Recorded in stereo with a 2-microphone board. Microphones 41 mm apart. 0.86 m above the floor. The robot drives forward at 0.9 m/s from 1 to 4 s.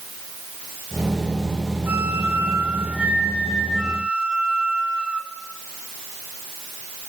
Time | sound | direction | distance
1.9 | a flute | 60° right (ahead or behind) | 1.4 m